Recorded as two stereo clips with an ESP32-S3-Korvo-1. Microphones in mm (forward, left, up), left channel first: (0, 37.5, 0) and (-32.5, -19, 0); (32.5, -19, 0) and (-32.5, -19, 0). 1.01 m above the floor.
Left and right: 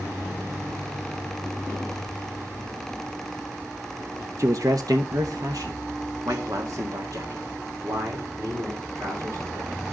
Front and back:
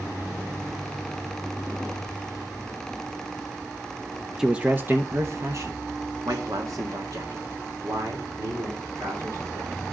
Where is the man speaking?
100° right, 0.6 m; by 9.9 s 160° right, 4 m.